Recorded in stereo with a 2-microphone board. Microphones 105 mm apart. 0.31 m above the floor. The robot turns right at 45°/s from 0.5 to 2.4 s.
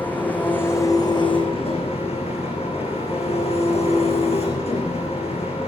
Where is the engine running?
15° left, 7 m; by 5.7 s 100° left, 7 m.